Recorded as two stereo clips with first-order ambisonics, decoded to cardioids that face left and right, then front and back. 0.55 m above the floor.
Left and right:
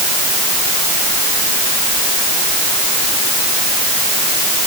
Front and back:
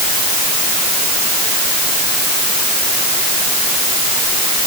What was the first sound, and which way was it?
Only background noise.